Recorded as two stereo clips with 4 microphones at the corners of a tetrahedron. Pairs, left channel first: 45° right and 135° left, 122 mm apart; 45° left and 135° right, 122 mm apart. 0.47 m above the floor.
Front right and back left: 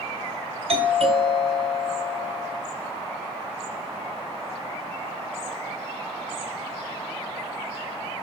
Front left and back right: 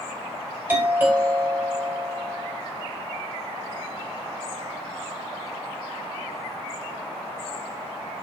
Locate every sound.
0.7 s a doorbell: 155° left, 4 m